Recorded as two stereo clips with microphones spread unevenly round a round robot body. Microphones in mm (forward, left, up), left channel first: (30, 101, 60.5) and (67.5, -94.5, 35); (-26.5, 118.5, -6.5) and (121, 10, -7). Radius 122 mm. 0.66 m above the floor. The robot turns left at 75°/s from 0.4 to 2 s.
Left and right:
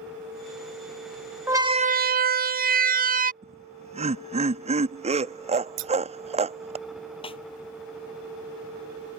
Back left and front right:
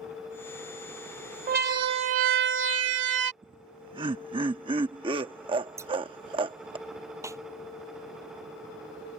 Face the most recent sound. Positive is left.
turn(degrees=40)